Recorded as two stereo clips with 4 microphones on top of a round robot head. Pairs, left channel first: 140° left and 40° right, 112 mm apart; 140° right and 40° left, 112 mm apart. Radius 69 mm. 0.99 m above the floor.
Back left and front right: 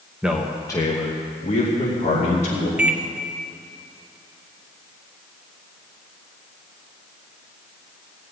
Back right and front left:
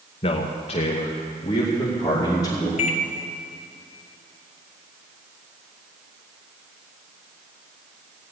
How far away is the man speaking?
About 1.0 m.